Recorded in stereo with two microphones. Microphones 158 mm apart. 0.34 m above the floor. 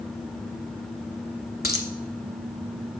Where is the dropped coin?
85° left, 0.9 m.